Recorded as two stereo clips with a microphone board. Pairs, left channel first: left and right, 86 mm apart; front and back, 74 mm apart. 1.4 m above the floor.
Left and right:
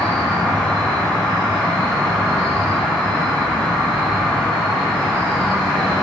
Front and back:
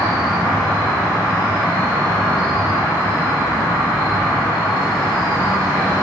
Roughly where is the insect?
Ahead.